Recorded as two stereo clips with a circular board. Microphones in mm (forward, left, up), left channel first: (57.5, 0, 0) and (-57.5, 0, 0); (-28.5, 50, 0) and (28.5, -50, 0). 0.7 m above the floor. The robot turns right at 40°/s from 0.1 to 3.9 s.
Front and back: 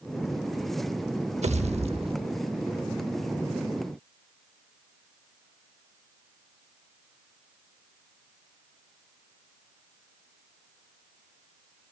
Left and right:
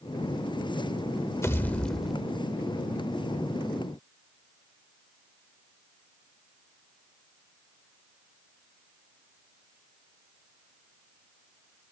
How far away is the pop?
About 0.7 m.